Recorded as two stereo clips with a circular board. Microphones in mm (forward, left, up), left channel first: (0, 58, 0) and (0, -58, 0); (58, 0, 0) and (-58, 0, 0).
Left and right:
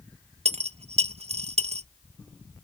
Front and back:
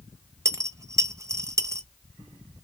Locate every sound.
0.5 s a dropped coin: 115° right, 0.7 m